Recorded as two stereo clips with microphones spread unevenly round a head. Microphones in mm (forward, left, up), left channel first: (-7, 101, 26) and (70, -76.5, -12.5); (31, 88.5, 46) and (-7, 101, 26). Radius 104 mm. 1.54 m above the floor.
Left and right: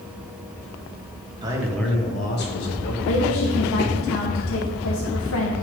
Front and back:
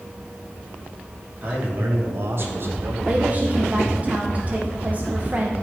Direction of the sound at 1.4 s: 135° right.